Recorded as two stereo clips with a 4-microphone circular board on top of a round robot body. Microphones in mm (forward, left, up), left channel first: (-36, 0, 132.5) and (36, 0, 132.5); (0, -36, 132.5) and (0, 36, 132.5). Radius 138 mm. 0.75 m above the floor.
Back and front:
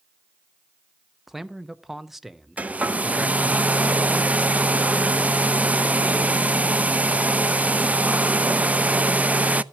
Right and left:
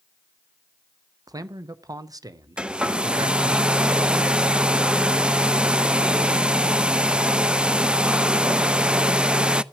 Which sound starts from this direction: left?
A man speaking, at 1.3 s.